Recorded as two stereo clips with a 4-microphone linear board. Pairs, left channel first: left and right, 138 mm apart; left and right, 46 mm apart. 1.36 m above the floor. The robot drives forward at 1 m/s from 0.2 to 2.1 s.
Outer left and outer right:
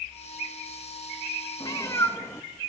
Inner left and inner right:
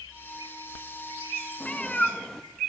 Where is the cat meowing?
30° left (ahead or behind), 0.6 m; by 2.5 s 20° left (ahead or behind), 0.8 m.